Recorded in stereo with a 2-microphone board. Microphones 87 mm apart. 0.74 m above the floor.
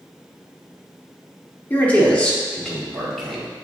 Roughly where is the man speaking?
Left.